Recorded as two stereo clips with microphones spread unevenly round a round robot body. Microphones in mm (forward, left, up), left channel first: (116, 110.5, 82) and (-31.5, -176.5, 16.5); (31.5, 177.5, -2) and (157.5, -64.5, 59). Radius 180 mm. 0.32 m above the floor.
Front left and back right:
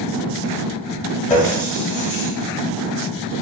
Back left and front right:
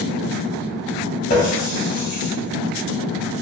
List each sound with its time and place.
1.3 s a running tap: 135° left, 1.0 m